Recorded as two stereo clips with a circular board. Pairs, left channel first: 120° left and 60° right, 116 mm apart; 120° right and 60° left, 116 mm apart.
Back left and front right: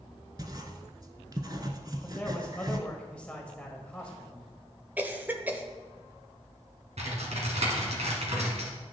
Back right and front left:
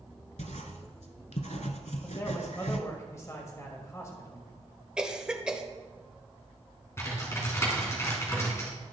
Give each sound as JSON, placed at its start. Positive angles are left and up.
{"t": 0.4, "sound": "writing", "azimuth_deg": -115, "distance_m": 0.9}
{"t": 2.0, "sound": "a man speaking", "azimuth_deg": -165, "distance_m": 1.3}
{"t": 5.0, "sound": "a cough", "azimuth_deg": -10, "distance_m": 0.9}
{"t": 7.0, "sound": "typing on a keyboard", "azimuth_deg": -55, "distance_m": 2.0}